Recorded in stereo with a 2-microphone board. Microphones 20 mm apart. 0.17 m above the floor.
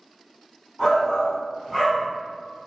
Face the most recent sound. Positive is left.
turn(degrees=10)  # may be behind; listen again after turning